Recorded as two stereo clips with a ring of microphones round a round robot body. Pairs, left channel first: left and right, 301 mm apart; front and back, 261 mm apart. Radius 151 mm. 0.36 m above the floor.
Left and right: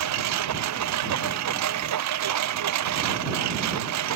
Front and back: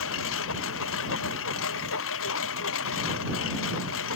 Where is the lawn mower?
50° right.